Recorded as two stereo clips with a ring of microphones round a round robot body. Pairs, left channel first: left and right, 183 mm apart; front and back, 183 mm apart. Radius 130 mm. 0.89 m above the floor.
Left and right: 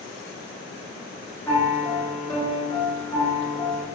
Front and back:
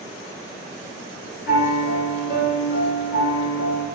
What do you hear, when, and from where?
1.5 s a piano: 15° left, 1.9 m